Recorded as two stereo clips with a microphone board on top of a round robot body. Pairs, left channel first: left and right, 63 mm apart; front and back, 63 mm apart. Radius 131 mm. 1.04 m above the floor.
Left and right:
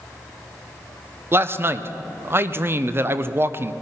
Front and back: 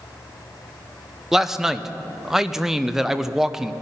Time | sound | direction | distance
1.3 | a man speaking | 100° right | 0.8 m